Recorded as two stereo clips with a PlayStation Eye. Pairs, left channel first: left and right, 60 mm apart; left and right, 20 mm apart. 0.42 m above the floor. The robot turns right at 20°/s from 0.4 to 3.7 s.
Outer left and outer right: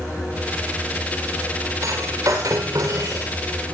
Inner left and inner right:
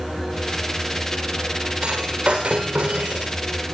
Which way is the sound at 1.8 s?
65° right (ahead or behind).